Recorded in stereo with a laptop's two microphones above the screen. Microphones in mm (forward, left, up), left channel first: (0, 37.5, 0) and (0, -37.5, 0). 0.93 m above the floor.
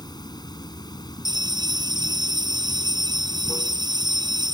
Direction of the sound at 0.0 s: 80° left.